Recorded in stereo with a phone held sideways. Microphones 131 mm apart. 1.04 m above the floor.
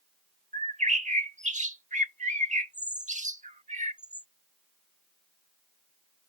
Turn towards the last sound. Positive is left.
turn(degrees=-70)  # may be behind; listen again after turning